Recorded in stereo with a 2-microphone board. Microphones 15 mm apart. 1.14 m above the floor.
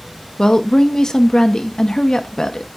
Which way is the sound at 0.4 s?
45° left (ahead or behind).